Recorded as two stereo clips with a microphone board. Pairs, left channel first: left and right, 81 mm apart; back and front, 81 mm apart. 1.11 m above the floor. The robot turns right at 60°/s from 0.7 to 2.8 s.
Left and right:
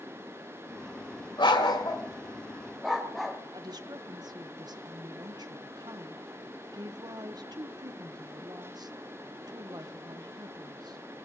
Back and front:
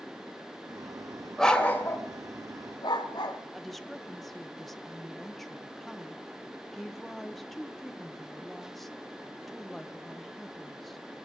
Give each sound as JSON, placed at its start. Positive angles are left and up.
{"t": 1.4, "sound": "a dog barking", "azimuth_deg": 95, "distance_m": 1.9}
{"t": 3.5, "sound": "a woman speaking", "azimuth_deg": -90, "distance_m": 0.9}